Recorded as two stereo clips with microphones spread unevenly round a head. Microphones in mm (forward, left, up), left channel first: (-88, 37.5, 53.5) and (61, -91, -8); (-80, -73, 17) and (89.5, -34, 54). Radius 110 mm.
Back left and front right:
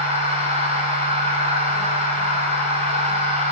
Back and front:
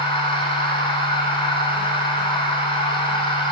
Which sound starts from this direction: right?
A machine running, at 0.0 s.